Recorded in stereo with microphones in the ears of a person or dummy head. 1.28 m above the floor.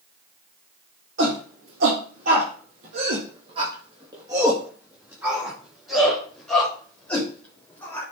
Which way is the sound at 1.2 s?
55° right (ahead or behind).